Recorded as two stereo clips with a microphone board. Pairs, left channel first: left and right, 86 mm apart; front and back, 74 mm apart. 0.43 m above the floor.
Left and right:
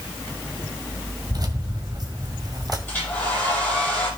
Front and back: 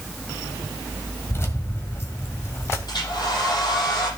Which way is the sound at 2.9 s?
25° left.